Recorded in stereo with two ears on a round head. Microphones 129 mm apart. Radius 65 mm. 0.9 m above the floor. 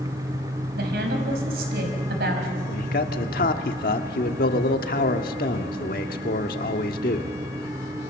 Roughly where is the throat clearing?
No throat clearing in this recording.